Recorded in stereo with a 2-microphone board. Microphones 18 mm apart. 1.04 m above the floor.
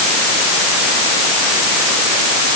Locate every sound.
Only background noise.